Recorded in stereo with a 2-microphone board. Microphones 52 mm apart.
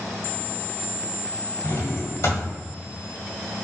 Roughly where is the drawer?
Left.